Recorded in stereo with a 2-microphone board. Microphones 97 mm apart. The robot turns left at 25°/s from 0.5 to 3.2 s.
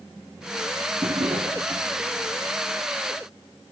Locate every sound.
1.0 s a drawer: 65° right (ahead or behind), 1.5 m; by 1.9 s 70° right (ahead or behind), 1.5 m